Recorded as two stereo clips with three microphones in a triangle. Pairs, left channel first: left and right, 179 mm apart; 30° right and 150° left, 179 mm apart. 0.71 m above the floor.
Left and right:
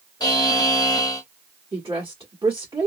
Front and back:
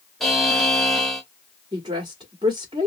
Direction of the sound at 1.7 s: 150° right.